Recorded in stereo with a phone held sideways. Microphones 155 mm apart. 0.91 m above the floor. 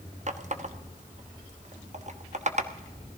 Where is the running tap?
50° right (ahead or behind), 0.9 m.